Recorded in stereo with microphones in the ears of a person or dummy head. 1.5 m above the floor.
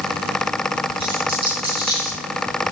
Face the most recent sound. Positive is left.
turn(degrees=-25)  # may be behind; listen again after turning